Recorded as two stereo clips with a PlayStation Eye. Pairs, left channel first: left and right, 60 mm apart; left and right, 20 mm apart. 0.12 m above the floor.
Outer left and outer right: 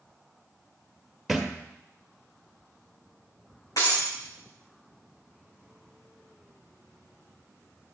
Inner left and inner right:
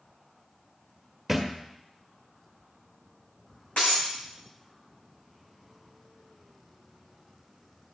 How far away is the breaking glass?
About 4.5 m.